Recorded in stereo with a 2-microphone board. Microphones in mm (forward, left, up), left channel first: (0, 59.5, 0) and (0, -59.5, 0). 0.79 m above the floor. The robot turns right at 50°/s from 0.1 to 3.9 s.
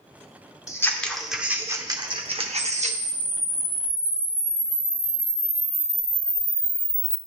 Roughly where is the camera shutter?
Behind left.